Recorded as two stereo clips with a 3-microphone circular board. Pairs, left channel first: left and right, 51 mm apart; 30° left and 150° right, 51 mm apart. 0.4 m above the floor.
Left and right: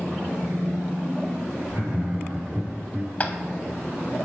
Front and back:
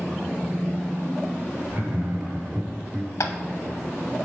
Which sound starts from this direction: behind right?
Laughter, at 1.7 s.